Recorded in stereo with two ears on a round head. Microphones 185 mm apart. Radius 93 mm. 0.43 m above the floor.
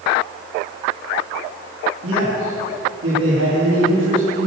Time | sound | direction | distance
2.0 | a man speaking | 75° right (ahead or behind) | 4.5 m